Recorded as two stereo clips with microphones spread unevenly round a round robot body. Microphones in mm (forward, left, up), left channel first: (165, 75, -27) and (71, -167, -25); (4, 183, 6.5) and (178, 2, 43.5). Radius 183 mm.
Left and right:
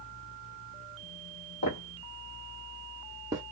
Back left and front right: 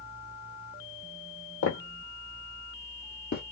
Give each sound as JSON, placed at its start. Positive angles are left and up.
{"t": 1.6, "sound": "footsteps", "azimuth_deg": 95, "distance_m": 1.3}